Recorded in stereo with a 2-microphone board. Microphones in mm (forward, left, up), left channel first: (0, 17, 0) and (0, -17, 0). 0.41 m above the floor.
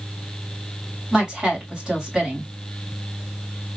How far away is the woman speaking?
About 2.5 m.